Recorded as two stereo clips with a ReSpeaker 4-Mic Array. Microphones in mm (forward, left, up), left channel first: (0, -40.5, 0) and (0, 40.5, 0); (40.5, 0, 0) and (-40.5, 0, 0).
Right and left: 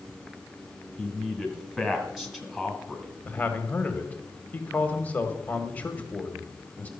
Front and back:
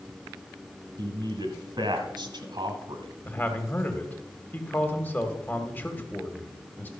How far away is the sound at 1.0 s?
About 2 m.